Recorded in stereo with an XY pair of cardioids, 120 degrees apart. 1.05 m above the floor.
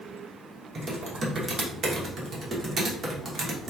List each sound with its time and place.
0.8 s typing on a keyboard: 35° right, 1.0 m